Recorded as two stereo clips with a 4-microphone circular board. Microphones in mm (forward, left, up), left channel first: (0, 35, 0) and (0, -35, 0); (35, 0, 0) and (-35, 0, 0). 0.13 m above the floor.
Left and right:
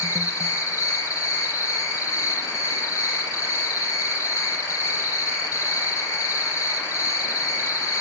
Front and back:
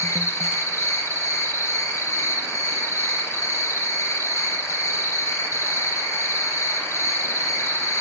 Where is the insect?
50° left, 3.5 m.